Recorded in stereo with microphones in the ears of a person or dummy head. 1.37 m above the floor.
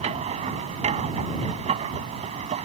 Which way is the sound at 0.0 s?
35° right (ahead or behind).